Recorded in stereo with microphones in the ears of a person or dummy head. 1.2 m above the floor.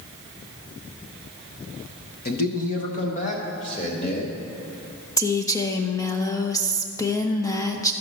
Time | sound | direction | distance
2.2 | a man speaking | 50° left (ahead or behind) | 0.9 m
5.2 | a woman speaking | 15° left (ahead or behind) | 0.6 m